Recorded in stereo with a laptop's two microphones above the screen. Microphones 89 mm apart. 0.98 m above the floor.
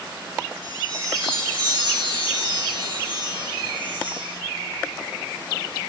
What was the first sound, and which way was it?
A chime, 65° right (ahead or behind).